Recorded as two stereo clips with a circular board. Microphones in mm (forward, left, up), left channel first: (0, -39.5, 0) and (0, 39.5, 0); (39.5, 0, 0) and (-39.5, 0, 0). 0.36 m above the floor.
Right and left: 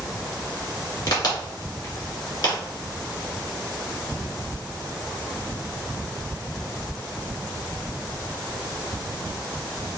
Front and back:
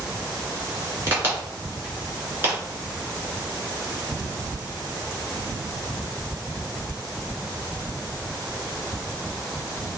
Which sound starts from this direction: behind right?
A crack, at 1.1 s.